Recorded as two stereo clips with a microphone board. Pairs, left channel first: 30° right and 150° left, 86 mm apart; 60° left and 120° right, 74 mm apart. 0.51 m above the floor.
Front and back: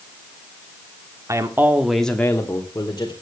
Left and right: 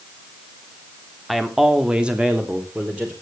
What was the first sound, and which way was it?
A man speaking, 150° left.